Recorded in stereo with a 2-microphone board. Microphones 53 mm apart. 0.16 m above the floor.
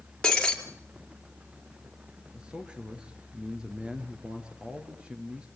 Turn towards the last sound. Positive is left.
turn(degrees=-15)  # may be behind; listen again after turning